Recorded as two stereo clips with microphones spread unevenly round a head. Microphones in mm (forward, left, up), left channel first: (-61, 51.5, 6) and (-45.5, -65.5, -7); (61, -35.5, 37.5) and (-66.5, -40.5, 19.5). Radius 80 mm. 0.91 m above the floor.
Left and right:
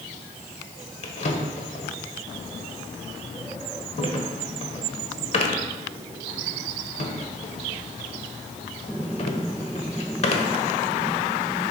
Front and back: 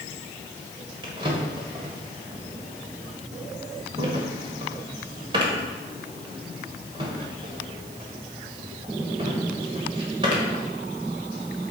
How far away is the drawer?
About 1.3 m.